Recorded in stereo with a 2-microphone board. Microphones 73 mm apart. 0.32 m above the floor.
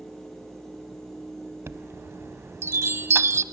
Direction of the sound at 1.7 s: 40° right (ahead or behind).